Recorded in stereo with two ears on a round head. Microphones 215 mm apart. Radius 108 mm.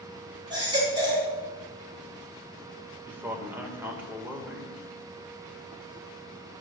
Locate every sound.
0.5 s a baby crying: 20° right (ahead or behind), 4 m
3.1 s a man speaking: 10° right (ahead or behind), 2 m